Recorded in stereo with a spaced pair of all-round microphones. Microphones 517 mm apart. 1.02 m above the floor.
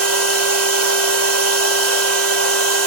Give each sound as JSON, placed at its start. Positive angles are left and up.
{"t": 0.0, "sound": "a machine running", "side_deg": -30, "distance_m": 0.7}